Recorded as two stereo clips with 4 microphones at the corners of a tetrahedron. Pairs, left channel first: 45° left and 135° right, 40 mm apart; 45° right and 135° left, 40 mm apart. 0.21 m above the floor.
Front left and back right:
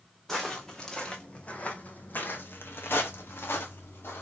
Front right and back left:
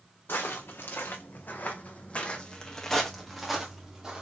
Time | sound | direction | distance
0.3 | footsteps | 35° right | 1.3 m